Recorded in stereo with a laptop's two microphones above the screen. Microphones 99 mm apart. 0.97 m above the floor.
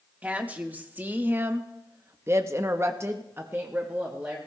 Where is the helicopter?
No helicopter in this recording.